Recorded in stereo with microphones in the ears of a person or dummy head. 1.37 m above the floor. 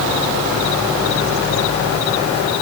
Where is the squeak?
I don't hear a squeak.